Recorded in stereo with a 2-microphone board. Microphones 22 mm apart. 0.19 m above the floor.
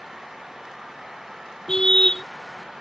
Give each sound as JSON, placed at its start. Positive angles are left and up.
{"t": 1.7, "sound": "a car horn", "side_deg": 30}